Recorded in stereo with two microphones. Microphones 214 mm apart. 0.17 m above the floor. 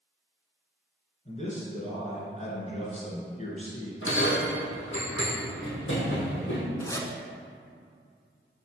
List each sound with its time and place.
1.2 s a man speaking: 35° left (ahead or behind), 1.8 m
4.0 s a bell: 65° left (ahead or behind), 2 m
6.8 s a zipper: 15° left (ahead or behind), 0.7 m